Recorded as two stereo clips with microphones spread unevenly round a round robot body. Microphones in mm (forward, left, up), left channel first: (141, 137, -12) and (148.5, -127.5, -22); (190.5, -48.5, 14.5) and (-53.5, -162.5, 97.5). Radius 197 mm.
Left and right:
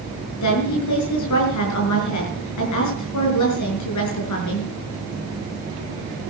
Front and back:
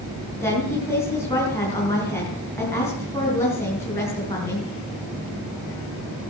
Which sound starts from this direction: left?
A woman speaking, at 0.4 s.